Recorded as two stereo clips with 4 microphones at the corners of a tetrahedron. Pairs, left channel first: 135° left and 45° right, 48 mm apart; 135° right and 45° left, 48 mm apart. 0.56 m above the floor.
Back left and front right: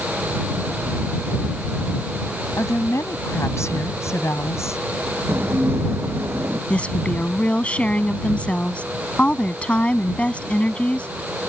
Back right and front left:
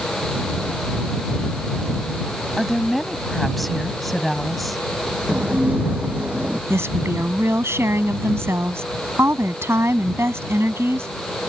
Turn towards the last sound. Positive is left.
turn(degrees=70)